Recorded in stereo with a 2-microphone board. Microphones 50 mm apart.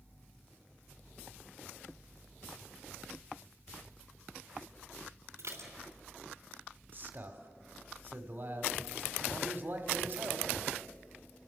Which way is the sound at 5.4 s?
80° right.